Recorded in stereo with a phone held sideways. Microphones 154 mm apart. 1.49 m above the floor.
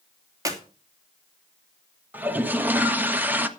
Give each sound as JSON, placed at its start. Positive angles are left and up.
{"t": 0.5, "sound": "a clap", "side_deg": -25, "distance_m": 3.0}
{"t": 2.1, "sound": "a toilet flushing", "side_deg": -15, "distance_m": 1.4}